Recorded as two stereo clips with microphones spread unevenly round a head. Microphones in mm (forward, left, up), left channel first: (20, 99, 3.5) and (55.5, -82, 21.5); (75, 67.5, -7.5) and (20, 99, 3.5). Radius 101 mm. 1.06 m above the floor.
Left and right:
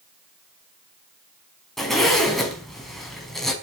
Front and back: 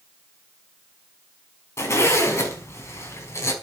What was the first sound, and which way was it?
A zipper, 10° left.